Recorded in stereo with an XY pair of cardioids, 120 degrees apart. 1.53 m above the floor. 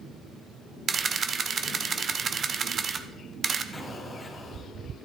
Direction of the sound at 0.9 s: 35° right.